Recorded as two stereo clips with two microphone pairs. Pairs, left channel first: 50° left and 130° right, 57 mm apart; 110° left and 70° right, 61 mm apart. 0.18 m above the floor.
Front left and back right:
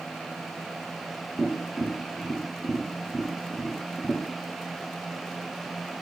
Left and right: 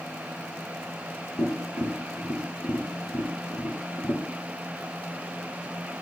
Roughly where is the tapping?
Left.